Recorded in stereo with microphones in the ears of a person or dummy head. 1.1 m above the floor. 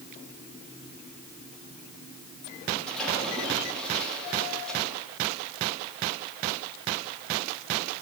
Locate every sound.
2.9 s a splash: 5° left (ahead or behind), 6.5 m